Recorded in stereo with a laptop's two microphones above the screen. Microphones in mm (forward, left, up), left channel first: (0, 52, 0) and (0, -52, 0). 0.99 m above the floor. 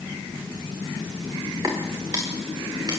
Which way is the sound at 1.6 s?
35° right (ahead or behind).